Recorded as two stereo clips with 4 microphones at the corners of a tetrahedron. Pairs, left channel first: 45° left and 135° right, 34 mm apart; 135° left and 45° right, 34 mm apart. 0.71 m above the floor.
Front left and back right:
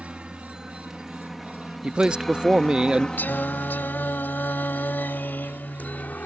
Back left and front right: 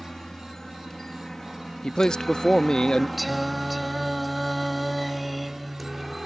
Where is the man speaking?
175° right.